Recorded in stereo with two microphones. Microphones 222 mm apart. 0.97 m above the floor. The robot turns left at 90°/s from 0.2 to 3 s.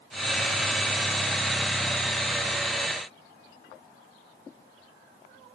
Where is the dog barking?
No dog barking in this recording.